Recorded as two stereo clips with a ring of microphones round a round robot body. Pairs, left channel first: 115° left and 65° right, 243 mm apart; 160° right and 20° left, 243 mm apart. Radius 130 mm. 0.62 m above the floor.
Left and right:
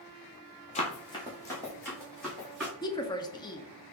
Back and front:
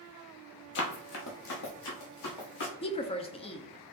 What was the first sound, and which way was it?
Running footsteps, 170° left.